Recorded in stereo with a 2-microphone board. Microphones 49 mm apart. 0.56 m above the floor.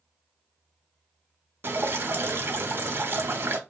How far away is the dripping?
About 0.6 m.